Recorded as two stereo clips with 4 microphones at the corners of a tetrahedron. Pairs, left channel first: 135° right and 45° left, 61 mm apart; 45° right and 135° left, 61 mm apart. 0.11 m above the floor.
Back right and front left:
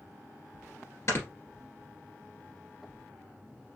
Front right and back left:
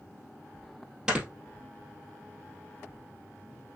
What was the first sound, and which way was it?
Snoring, 150° right.